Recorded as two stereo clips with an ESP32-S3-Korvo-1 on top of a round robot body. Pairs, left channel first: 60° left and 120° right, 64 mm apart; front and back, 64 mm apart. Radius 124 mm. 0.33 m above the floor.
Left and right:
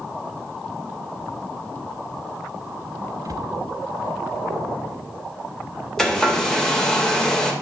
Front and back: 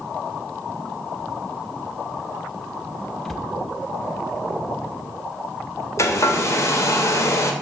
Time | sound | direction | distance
3.2 | a cupboard door | 85° right | 0.8 m
6.0 | a hair dryer | 20° right | 1.9 m